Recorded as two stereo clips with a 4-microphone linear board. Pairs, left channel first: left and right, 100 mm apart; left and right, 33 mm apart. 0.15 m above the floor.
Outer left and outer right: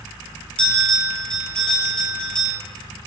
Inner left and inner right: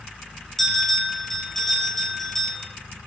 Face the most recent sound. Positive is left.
turn(degrees=10)  # may be behind; listen again after turning